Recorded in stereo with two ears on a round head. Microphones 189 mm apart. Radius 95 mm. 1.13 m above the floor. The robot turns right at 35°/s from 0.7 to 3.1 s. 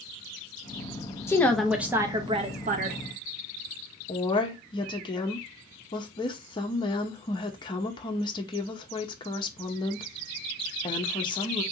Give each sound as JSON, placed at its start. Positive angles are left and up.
{"t": 1.3, "sound": "a woman speaking", "azimuth_deg": 170, "distance_m": 0.5}
{"t": 4.1, "sound": "a woman speaking", "side_deg": 20, "distance_m": 0.6}